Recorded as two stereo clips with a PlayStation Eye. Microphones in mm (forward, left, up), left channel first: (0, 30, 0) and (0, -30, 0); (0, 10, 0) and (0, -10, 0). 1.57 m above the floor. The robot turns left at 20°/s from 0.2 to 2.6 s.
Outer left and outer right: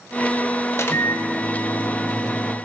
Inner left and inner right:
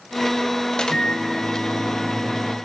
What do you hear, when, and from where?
0.7 s a microwave: 55° left, 0.9 m; by 2.5 s 20° left, 0.9 m